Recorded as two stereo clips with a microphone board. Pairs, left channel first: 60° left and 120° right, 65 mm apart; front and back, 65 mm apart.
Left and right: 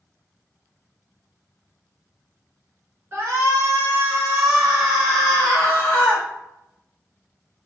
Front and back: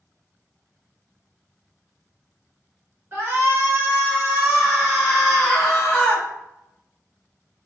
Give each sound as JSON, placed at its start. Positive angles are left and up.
{"t": 3.1, "sound": "a shout", "azimuth_deg": -150, "distance_m": 1.7}